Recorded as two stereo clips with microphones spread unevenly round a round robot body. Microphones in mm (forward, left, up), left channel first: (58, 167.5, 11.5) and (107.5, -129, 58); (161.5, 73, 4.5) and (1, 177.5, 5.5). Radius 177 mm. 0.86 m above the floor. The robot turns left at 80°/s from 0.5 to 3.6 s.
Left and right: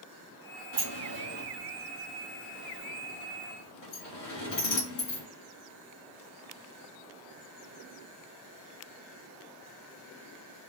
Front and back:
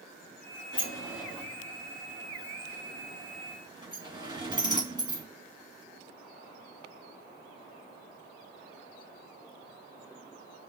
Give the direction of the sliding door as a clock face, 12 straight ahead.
2 o'clock.